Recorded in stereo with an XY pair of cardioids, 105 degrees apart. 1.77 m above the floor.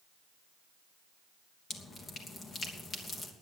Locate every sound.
1.7 s dripping: 40° left, 3 m